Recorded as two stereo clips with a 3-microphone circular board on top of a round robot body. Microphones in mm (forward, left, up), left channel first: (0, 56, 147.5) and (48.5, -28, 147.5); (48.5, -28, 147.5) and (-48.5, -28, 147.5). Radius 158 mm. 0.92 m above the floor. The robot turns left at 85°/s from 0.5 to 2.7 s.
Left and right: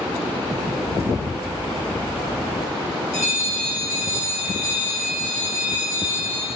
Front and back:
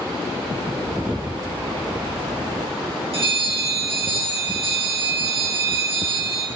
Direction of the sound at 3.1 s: 175° right.